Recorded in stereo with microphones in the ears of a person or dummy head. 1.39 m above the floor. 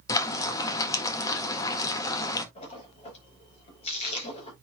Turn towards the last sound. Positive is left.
turn(degrees=40)  # may be behind; listen again after turning